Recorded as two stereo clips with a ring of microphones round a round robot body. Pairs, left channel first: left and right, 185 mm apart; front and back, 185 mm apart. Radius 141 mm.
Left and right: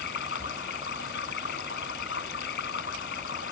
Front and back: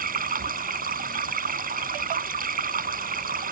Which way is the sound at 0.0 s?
140° left.